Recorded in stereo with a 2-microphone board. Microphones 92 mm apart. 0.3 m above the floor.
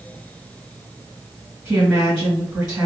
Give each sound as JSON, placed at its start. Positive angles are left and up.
{"t": 1.6, "sound": "a woman speaking", "side_deg": -10, "distance_m": 1.7}